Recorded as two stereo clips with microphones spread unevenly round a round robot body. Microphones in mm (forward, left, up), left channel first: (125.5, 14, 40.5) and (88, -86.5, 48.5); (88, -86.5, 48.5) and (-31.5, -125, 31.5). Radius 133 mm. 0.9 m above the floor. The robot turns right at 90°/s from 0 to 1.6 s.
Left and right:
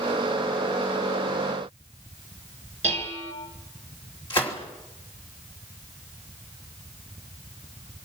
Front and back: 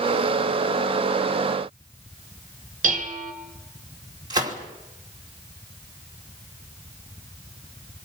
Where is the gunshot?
135° left, 2.5 m.